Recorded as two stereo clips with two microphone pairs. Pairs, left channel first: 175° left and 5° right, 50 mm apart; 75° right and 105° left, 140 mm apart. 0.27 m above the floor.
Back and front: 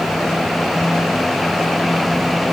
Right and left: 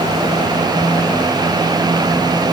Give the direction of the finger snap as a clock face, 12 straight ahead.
No finger snap in this recording.